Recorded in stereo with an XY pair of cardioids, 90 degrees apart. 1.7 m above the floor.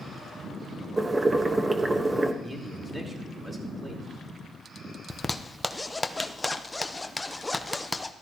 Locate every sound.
1.0 s boiling: 25° right, 1.3 m
2.4 s a man speaking: 20° right, 4 m
5.1 s a zipper: 15° left, 0.9 m